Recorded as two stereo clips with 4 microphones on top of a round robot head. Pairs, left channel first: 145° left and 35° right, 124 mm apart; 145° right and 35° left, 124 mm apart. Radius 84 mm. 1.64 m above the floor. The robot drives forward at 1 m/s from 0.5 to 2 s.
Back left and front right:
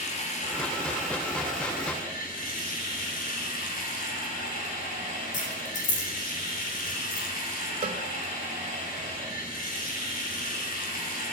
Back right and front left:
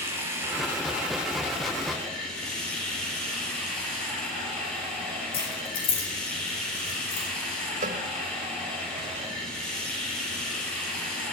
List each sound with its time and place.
0.0 s running water: 110° left, 3 m; by 11.3 s 130° left, 3.5 m
5.3 s keys jangling: 170° left, 3.5 m
7.8 s a cowbell: 10° left, 1.1 m